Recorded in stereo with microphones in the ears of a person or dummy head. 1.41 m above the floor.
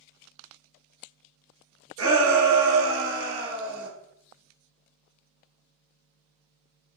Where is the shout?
70° right (ahead or behind), 1.0 m; by 3.9 s 40° right (ahead or behind), 1.2 m.